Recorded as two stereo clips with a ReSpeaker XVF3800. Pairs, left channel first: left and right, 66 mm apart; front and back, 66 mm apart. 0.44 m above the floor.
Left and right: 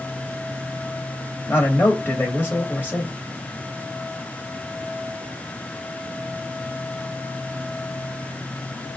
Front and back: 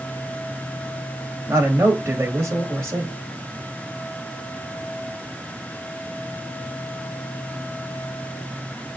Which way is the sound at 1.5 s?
140° left.